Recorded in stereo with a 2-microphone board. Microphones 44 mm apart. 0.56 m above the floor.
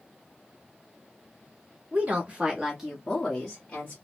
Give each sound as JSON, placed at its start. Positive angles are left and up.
{"t": 1.9, "sound": "a woman speaking", "side_deg": -35, "distance_m": 1.5}